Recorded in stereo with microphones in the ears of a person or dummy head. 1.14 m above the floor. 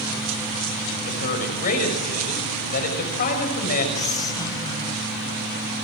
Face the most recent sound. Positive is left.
turn(degrees=30)  # may be behind; listen again after turning